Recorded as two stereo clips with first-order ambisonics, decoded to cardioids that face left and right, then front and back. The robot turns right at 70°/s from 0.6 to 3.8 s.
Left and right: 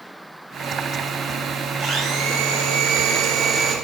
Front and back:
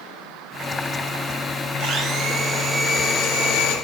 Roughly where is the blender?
Behind right.